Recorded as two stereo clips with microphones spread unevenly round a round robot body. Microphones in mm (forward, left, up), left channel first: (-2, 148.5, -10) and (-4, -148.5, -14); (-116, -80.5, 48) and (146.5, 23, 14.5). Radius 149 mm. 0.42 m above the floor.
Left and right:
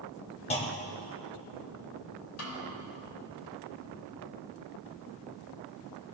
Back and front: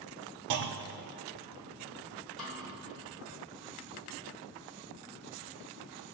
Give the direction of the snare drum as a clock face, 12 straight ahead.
8 o'clock.